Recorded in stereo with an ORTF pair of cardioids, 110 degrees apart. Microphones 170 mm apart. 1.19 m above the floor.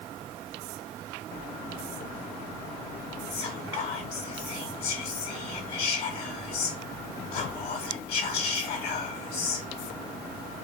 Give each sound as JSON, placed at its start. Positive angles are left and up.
{"t": 3.3, "sound": "whispering", "azimuth_deg": 70, "distance_m": 1.2}